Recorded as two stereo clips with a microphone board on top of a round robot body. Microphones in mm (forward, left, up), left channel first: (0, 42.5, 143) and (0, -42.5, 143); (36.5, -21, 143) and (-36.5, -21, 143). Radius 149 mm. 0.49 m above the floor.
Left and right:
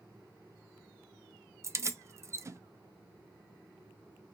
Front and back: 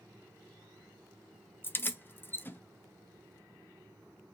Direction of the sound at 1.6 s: 50° right.